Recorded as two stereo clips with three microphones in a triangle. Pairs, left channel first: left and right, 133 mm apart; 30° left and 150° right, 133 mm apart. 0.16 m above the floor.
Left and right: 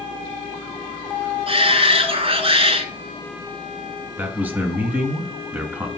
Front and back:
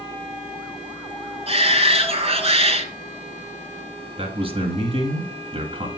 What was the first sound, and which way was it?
A shout, 125° right.